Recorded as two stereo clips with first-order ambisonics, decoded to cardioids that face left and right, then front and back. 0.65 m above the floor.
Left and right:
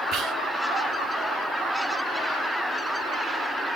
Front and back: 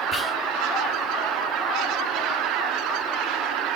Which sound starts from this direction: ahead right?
Whispering, at 0.1 s.